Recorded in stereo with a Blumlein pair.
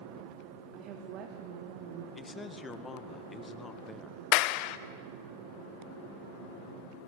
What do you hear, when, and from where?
0.7 s a woman speaking: 35° right, 3.5 m; by 2.0 s 50° right, 2 m
2.1 s a man speaking: 15° left, 1.8 m
4.3 s a clap: 45° left, 0.8 m